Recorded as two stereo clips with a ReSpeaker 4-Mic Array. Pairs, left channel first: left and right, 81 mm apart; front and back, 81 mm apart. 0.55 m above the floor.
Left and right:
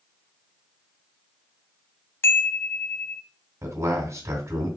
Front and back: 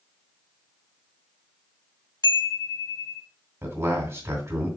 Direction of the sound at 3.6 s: 135° right.